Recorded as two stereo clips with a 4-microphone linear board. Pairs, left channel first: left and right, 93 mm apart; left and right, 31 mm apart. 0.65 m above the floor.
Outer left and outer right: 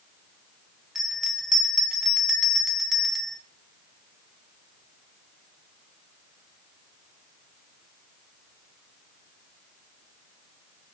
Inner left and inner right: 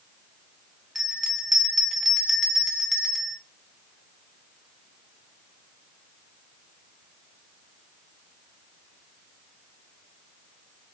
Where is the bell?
5° right (ahead or behind), 0.7 m.